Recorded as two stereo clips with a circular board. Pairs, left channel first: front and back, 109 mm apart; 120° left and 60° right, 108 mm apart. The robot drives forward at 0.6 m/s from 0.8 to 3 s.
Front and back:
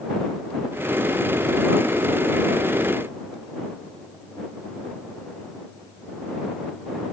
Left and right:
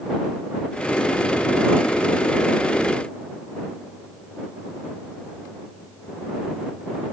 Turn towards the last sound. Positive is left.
No sound to turn to.